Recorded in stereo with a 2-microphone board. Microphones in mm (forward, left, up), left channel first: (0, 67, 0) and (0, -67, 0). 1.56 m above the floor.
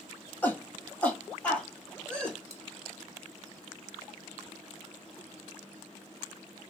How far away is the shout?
About 1.3 m.